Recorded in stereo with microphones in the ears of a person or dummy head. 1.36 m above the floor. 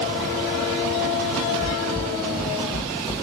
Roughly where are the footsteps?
Centre.